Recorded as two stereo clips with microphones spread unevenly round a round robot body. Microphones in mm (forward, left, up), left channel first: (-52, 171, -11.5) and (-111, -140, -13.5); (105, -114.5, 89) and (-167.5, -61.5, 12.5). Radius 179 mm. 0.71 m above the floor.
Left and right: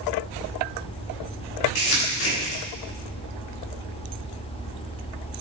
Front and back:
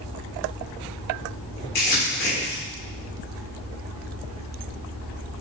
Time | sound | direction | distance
1.8 | crumpling | 55° left | 2 m